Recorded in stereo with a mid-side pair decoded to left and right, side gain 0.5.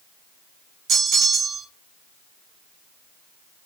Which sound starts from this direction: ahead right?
A bell, at 0.9 s.